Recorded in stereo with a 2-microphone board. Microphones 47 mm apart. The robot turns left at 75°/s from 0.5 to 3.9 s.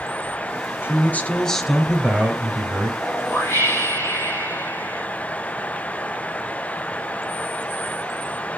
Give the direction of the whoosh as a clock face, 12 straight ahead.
7 o'clock.